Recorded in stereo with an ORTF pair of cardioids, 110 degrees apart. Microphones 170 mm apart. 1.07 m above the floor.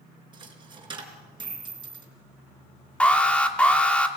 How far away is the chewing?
I don't hear chewing.